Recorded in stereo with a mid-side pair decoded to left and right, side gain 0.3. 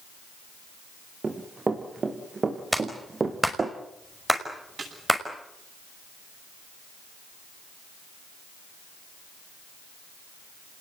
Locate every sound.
1.2 s running footsteps: 45° right, 5.5 m
2.7 s a clap: 5° right, 6 m
4.8 s a snare drum: 60° right, 9.5 m